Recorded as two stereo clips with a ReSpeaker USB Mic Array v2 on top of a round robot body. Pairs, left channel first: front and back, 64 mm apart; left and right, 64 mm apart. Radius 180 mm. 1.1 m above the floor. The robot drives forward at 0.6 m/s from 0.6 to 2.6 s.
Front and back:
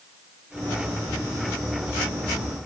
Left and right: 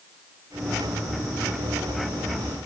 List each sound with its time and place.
Only background noise.